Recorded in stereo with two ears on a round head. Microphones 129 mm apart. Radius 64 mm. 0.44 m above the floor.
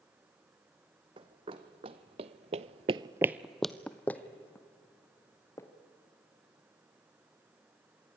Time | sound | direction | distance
1.2 | running footsteps | 40° right (ahead or behind) | 1.8 m